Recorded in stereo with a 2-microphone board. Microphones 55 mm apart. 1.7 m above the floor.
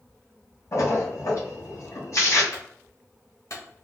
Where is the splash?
60° left (ahead or behind), 2 m.